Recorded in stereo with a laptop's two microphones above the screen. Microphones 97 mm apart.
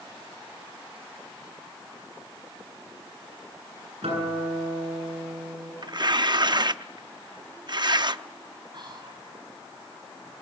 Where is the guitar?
90° right, 9 m.